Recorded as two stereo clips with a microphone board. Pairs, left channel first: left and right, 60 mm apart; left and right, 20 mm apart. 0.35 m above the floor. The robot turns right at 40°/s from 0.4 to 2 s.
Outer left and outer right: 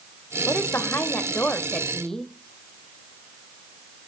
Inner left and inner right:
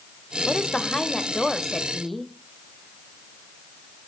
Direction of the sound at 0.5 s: 105° left.